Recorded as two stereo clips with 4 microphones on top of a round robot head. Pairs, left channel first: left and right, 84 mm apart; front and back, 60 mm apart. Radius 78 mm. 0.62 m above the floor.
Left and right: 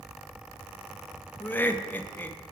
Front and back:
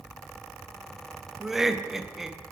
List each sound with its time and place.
1.4 s laughter: 105° left, 0.5 m